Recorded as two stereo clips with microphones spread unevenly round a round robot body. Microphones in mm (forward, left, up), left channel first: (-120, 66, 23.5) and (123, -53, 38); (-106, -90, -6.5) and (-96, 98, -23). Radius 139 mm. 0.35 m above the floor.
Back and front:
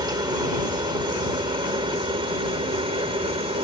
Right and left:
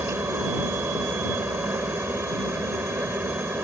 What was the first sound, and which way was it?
A helicopter, 25° left.